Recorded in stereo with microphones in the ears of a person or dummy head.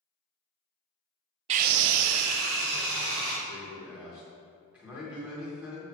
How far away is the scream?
About 0.5 m.